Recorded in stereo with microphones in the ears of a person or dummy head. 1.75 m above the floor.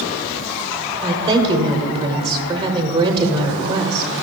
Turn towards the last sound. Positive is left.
turn(degrees=-25)  # may be behind; listen again after turning